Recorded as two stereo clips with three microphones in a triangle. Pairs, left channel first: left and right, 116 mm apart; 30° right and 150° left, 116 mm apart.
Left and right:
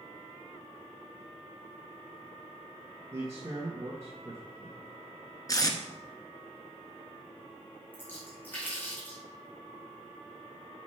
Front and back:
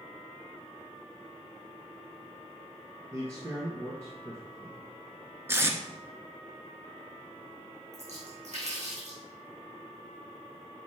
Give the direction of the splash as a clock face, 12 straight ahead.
7 o'clock.